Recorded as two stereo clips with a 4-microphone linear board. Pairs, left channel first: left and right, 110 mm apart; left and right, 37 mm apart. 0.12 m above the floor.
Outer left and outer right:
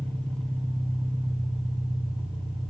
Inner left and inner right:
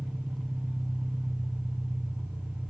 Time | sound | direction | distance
0.0 | an engine running | 50° right (ahead or behind) | 3.5 m